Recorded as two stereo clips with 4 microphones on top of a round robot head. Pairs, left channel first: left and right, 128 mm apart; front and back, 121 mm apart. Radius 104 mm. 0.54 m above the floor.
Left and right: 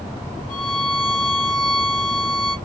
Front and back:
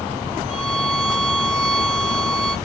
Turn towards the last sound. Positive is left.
turn(degrees=125)